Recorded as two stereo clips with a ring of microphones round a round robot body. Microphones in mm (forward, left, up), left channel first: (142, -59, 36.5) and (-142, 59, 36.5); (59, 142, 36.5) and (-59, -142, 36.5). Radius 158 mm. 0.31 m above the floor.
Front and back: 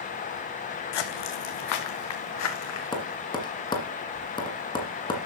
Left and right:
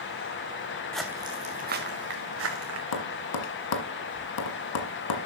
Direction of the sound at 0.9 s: 20° right.